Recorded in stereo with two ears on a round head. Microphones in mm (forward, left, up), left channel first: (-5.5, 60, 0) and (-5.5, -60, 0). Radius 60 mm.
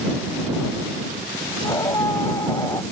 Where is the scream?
20° left (ahead or behind).